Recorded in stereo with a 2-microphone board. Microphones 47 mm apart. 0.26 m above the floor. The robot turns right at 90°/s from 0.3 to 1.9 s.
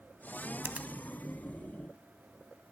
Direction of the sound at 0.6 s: 45° right (ahead or behind).